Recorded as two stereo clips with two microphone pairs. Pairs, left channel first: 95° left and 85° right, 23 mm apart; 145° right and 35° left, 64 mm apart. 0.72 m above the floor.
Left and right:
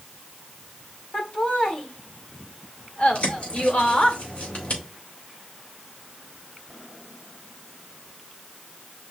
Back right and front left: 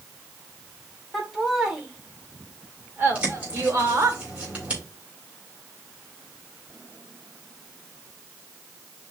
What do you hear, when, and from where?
1.1 s laughter: 125° left, 1.9 m; by 4.2 s 75° left, 2.0 m
3.1 s a bird: 100° left, 3.5 m